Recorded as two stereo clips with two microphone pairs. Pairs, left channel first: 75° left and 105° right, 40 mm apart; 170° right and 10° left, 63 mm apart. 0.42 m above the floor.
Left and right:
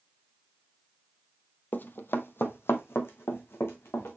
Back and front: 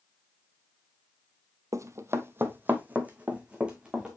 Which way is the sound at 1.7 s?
40° left.